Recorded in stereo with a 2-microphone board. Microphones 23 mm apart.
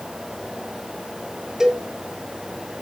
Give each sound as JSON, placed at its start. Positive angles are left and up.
{"t": 1.6, "sound": "a cowbell", "side_deg": -25, "distance_m": 1.9}